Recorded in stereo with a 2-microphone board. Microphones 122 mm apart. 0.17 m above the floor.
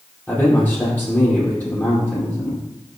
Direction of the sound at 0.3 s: 15° left (ahead or behind).